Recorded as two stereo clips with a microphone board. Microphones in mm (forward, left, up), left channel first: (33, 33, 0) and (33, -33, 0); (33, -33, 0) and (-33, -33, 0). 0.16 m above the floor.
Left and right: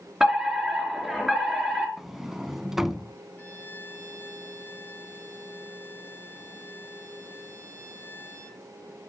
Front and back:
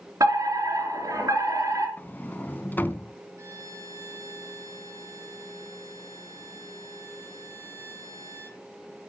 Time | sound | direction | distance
0.2 | a fire alarm | 175° right | 3.5 m
2.0 | a sliding door | 10° right | 0.6 m
3.4 | a violin | 150° left | 3 m